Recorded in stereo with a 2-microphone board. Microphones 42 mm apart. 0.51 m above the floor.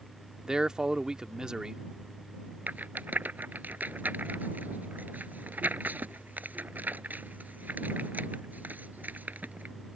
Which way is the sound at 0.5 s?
15° right (ahead or behind).